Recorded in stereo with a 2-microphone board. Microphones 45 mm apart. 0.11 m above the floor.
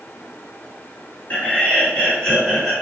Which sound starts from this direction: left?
Laughter, at 1.3 s.